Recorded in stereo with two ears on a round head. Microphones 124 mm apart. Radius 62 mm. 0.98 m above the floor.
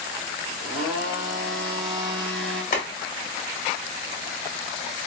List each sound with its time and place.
0.6 s a blender: centre (ahead or behind), 1.6 m
2.7 s boiling: 55° left (ahead or behind), 1.7 m